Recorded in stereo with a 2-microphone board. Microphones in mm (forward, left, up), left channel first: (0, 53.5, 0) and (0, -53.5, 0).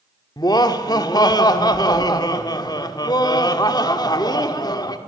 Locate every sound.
0.4 s laughter: 40° left (ahead or behind), 1.7 m